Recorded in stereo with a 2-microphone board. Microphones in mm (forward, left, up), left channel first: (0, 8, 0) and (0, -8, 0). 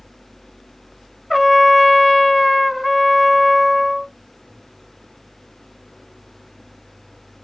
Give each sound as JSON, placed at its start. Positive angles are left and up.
{"t": 1.3, "sound": "a trumpet", "side_deg": -5, "distance_m": 0.5}